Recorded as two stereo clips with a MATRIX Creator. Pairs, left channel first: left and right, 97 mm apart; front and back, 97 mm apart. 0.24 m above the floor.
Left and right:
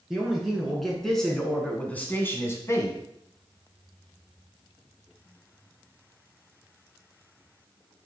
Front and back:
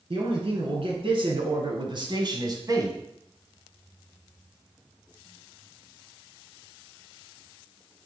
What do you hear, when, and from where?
0.1 s a man speaking: 175° right, 2.5 m; by 3.0 s 135° left, 1.5 m